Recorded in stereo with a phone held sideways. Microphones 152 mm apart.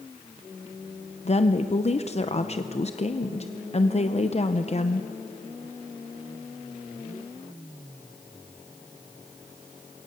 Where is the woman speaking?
45° left (ahead or behind), 0.7 m.